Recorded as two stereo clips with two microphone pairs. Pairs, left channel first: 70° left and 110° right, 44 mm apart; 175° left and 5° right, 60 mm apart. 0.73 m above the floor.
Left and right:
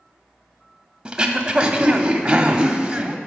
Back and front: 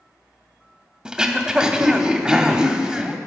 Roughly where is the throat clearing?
Right.